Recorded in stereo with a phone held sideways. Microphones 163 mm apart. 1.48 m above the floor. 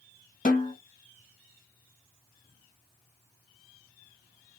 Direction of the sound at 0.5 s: 55° left (ahead or behind).